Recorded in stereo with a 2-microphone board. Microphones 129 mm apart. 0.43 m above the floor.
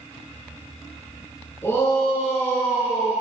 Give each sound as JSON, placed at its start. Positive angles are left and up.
{"t": 1.6, "sound": "a shout", "side_deg": 20, "distance_m": 5.5}